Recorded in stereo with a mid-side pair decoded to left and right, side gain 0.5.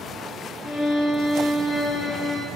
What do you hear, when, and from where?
0.6 s a violin: 45° left, 1.8 m